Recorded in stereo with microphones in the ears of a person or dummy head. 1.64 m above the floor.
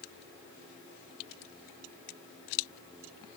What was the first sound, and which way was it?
Only background noise.